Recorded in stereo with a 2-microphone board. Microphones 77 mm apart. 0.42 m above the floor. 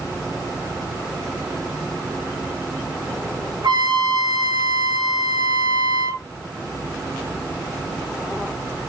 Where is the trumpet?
65° right (ahead or behind), 3 m.